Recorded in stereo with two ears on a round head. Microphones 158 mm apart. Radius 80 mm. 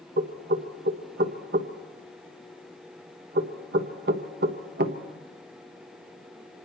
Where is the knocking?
55° right (ahead or behind), 1.3 m.